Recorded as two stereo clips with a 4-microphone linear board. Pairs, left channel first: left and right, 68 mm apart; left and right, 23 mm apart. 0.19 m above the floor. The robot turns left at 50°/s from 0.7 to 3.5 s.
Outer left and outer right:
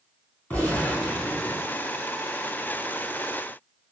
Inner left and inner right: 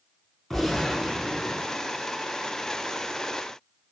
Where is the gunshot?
25° left, 2.5 m; by 1.8 s 30° right, 2.5 m.